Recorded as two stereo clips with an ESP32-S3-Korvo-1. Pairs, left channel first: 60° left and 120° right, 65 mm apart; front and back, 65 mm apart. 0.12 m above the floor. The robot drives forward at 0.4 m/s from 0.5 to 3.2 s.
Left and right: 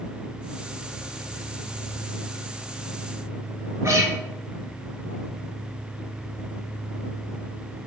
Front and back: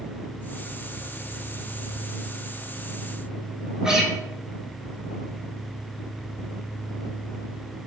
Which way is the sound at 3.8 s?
100° right.